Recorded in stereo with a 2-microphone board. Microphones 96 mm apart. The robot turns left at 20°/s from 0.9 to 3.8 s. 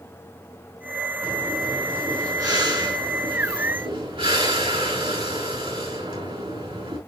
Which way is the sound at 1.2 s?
15° right.